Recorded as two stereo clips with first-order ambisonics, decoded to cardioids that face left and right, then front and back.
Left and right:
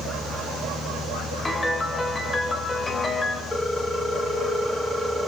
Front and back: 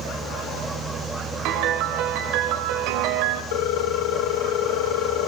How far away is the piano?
About 2.5 m.